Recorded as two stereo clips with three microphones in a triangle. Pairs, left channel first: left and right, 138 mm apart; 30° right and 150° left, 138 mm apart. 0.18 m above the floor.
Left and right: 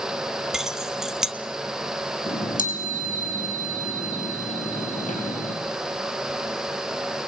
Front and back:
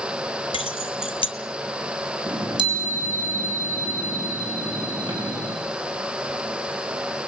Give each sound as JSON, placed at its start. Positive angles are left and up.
{"t": 0.5, "sound": "keys jangling", "azimuth_deg": -5, "distance_m": 1.0}
{"t": 2.3, "sound": "a chime", "azimuth_deg": 95, "distance_m": 6.0}